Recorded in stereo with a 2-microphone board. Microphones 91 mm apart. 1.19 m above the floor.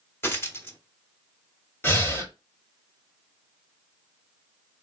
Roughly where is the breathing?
Left.